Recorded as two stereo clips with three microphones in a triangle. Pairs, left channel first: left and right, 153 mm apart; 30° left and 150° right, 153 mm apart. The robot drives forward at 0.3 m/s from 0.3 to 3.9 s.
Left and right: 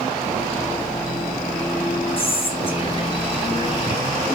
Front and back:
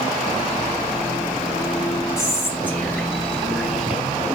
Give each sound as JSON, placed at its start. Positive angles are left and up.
{"t": 2.2, "sound": "whispering", "azimuth_deg": 90, "distance_m": 1.3}